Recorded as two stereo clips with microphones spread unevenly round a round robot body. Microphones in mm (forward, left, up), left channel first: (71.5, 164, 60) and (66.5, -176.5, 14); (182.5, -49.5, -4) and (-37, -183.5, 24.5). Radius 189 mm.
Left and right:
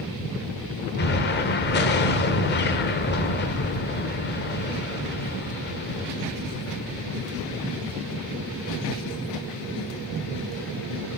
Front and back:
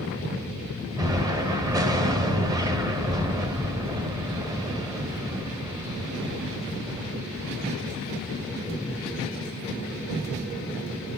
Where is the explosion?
135° left, 0.8 m.